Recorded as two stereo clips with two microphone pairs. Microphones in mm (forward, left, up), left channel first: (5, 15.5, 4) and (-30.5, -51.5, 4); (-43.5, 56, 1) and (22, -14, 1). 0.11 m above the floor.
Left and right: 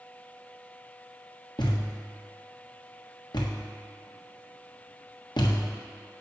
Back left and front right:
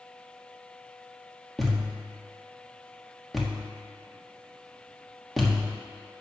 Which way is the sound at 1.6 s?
45° left.